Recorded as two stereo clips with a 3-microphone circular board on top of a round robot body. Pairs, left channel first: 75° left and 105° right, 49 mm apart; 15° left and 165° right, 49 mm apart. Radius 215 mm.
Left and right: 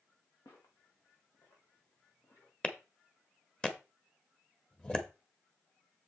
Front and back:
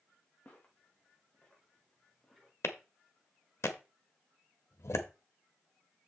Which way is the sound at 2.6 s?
5° left.